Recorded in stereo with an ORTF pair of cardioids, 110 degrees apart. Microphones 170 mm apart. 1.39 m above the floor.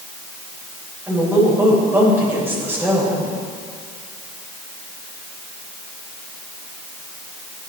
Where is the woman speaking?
15° right, 7.5 m.